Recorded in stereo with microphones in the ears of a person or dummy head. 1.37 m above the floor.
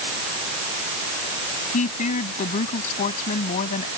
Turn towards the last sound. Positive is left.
turn(degrees=40)  # may be behind; listen again after turning